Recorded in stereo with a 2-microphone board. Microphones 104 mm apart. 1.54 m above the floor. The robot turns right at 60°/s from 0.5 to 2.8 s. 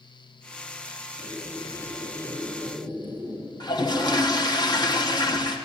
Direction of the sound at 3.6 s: 40° left (ahead or behind).